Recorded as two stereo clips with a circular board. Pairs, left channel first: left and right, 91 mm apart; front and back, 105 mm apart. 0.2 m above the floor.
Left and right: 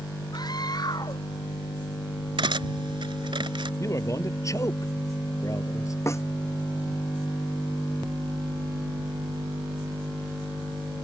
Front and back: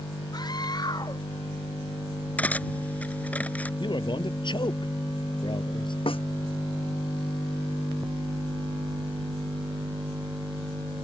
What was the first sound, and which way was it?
A scream, 50° left.